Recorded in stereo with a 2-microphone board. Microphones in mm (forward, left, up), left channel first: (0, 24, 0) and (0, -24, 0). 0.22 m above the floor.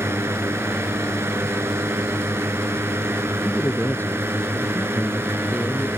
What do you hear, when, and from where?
0.0 s a drone: 65° right (ahead or behind); by 6.0 s 55° right (ahead or behind)
3.5 s a man speaking: 45° left (ahead or behind)